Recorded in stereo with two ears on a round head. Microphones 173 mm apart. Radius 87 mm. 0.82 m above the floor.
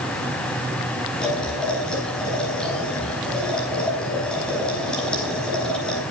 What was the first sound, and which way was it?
Boiling, 5° left (ahead or behind).